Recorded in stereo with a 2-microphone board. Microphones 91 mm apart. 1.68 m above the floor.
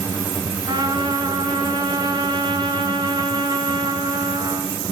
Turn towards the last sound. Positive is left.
turn(degrees=-60)  # may be behind; listen again after turning